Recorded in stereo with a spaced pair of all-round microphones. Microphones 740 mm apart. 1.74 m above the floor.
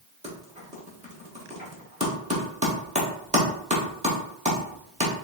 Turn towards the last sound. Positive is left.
turn(degrees=-10)  # may be behind; listen again after turning